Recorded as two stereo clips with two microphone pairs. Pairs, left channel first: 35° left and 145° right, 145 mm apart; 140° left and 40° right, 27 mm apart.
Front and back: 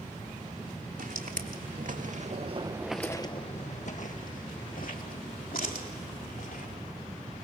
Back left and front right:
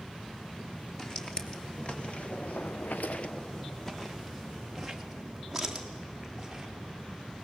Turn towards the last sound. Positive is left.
turn(degrees=40)